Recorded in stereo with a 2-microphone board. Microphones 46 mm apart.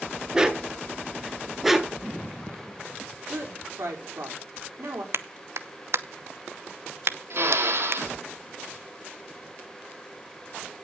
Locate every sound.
0.3 s a dog barking: 10° right (ahead or behind), 1.2 m; by 2.0 s centre (ahead or behind), 1.1 m
3.3 s a woman speaking: 65° right (ahead or behind), 4.5 m
5.1 s a clap: 60° right (ahead or behind), 0.8 m
7.3 s a drill: 55° right (ahead or behind), 2.5 m